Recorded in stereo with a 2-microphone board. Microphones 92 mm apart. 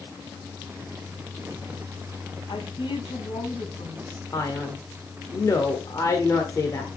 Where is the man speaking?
35° left (ahead or behind), 1.4 m.